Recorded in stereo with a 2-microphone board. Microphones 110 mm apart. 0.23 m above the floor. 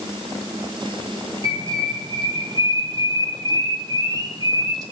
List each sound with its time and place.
1.4 s a bird: 40° right (ahead or behind), 1.9 m